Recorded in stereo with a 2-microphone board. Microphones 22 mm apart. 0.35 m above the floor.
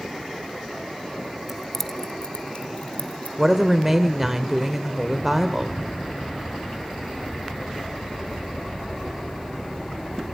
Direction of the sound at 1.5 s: 10° right (ahead or behind).